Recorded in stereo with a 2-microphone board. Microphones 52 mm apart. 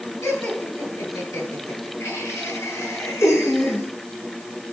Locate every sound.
0.2 s laughter: 80° left, 9 m; by 3.9 s 70° left (ahead or behind), 7 m